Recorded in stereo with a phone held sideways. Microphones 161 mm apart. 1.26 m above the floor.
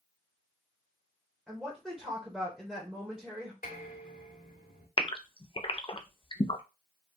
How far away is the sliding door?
I don't hear a sliding door.